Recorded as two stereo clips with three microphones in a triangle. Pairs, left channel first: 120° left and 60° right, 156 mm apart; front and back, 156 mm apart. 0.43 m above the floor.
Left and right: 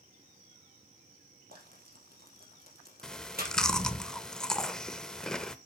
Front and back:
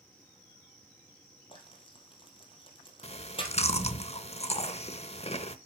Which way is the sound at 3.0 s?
35° left.